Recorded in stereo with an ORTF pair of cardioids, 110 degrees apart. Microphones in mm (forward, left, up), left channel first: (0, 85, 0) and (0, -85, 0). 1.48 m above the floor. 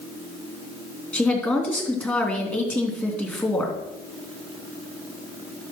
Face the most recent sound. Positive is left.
turn(degrees=10)